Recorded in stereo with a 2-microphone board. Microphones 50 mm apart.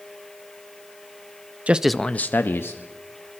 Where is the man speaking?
30° right (ahead or behind), 0.6 m; by 2.8 s 60° left (ahead or behind), 1.4 m.